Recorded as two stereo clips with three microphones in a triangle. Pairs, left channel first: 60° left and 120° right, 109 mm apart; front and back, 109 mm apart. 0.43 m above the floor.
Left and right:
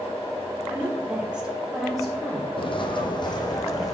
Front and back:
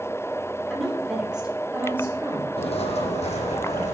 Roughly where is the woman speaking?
Right.